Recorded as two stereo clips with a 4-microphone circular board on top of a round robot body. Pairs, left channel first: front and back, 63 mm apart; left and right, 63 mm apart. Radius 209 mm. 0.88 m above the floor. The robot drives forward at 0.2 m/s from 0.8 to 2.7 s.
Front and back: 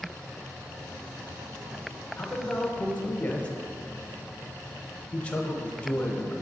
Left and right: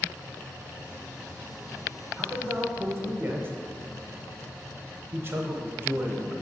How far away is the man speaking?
About 0.9 m.